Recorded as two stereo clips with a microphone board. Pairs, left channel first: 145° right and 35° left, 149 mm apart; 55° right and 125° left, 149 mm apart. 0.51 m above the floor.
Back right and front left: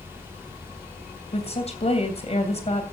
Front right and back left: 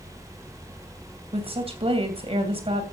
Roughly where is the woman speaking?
Behind.